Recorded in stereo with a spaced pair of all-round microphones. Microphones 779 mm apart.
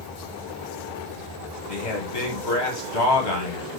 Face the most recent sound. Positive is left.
turn(degrees=65)  # may be behind; listen again after turning